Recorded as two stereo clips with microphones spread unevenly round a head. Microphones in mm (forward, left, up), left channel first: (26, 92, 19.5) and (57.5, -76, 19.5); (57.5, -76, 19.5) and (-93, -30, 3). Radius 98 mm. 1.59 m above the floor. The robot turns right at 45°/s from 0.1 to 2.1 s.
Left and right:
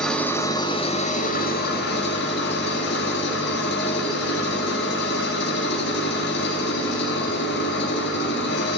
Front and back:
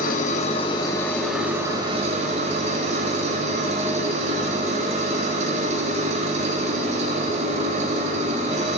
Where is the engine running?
15° left, 1.7 m; by 8.8 s 105° left, 1.7 m.